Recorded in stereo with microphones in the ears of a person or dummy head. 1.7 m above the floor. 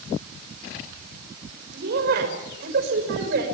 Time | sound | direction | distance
1.7 | a woman speaking | 60° right (ahead or behind) | 6.5 m